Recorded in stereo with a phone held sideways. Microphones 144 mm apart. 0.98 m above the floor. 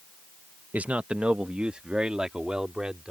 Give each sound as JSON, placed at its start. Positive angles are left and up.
{"t": 0.7, "sound": "a man speaking", "side_deg": -10}